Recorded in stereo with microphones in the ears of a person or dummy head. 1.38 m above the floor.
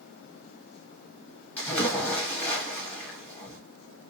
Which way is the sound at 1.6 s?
10° left (ahead or behind).